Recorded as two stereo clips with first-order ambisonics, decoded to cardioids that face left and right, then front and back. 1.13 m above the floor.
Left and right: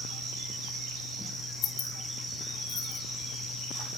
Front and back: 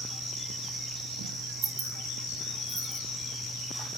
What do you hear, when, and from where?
1.6 s keys jangling: 125° left, 1.0 m